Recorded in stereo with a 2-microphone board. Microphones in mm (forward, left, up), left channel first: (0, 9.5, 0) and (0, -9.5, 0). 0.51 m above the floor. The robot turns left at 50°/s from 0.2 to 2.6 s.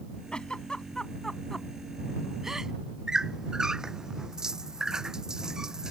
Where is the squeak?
40° right (ahead or behind).